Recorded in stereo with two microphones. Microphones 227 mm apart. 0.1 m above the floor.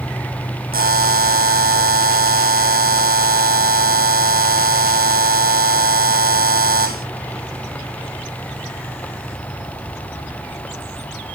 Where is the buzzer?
40° right (ahead or behind), 0.8 m.